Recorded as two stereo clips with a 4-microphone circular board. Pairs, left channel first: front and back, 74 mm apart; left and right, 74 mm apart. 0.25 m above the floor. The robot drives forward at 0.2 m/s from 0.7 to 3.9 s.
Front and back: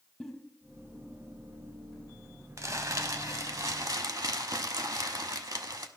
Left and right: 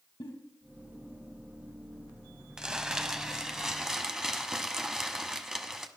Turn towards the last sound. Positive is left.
turn(degrees=-170)